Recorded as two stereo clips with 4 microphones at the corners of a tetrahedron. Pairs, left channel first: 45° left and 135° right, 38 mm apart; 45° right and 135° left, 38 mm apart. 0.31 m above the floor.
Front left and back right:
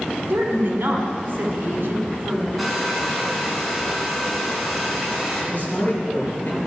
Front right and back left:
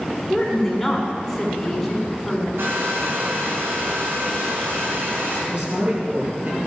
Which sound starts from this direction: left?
A man speaking, at 5.5 s.